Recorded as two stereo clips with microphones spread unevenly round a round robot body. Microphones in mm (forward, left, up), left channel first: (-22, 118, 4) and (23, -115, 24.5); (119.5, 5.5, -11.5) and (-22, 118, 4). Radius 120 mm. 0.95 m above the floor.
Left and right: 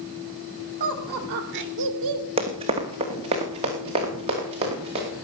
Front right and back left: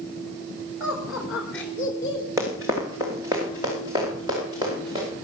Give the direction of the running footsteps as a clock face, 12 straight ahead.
5 o'clock.